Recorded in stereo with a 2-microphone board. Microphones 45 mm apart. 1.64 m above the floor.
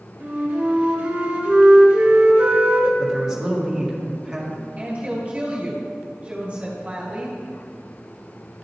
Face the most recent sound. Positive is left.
turn(degrees=-30)  # may be behind; listen again after turning